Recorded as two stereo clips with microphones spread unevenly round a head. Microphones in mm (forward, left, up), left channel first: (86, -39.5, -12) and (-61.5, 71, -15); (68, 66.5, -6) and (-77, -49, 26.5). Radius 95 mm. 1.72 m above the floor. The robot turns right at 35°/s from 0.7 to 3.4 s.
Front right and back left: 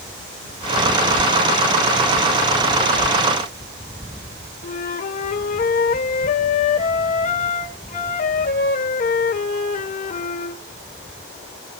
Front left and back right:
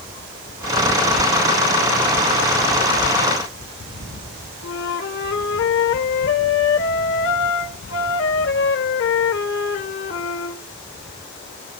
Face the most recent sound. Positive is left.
turn(degrees=10)